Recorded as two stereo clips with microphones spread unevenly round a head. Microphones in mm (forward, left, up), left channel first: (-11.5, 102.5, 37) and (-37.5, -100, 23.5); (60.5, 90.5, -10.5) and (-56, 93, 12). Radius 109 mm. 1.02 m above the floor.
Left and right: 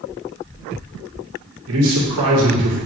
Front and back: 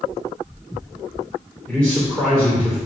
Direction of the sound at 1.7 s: 85° right.